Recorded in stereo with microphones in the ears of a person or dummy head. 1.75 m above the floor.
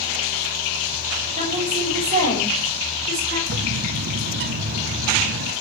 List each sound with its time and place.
1.4 s a woman speaking: 45° right (ahead or behind), 8.5 m; by 3.4 s 50° right (ahead or behind), 8.5 m
3.5 s a bird: 60° right (ahead or behind), 1.2 m